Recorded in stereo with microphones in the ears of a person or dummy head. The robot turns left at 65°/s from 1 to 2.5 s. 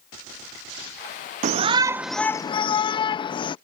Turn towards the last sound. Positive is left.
turn(degrees=155)